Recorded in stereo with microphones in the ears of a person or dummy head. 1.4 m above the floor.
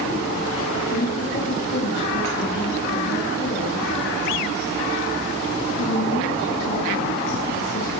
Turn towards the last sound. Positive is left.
turn(degrees=60)  # may be behind; listen again after turning